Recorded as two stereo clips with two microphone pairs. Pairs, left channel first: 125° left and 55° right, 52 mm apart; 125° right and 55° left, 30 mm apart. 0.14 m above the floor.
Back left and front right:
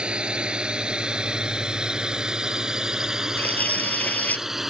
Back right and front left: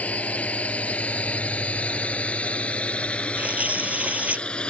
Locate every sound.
0.0 s a drone: 125° right; by 4.7 s 135° right
3.4 s tearing paper: 70° left